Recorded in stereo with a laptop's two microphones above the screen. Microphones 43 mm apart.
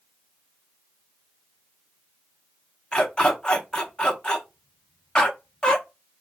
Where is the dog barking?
20° left (ahead or behind), 0.7 m.